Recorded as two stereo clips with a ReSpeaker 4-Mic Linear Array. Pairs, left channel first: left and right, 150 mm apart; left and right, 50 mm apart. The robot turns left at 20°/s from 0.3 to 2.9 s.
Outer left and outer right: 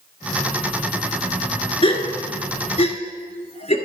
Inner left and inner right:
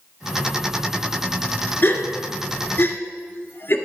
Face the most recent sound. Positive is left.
turn(degrees=40)  # may be behind; listen again after turning